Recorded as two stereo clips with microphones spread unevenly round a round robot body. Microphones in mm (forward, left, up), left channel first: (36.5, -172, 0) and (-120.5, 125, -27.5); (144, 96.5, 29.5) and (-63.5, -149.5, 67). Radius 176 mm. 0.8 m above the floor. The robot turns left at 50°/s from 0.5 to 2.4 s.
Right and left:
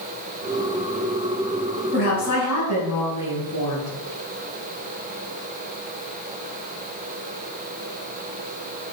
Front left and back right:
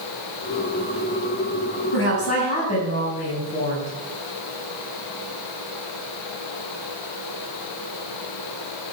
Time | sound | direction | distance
1.9 | a woman speaking | 5° left | 6 m